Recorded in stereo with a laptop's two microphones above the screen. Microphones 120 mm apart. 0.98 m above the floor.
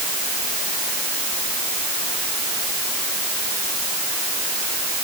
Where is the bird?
No bird in this recording.